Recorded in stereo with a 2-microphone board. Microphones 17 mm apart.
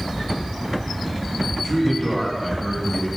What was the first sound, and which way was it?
A man speaking, centre (ahead or behind).